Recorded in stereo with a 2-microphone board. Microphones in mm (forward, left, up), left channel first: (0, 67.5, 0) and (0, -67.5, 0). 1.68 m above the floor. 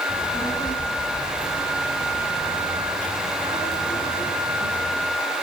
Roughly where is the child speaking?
Left.